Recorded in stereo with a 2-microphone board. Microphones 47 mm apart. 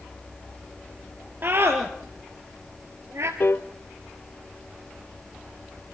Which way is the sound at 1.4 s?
45° right (ahead or behind).